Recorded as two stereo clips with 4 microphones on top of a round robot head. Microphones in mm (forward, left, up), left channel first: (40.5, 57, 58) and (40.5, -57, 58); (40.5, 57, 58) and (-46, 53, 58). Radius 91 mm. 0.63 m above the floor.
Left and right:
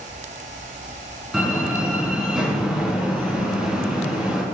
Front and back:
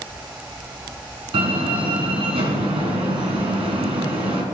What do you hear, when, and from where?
1.3 s a door slam: 175° right, 5 m